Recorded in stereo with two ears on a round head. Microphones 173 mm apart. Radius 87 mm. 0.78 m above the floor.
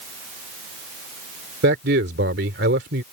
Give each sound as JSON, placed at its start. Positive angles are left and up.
{"t": 1.6, "sound": "a man speaking", "side_deg": -60}